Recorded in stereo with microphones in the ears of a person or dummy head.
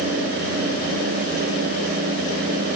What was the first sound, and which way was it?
Only background noise.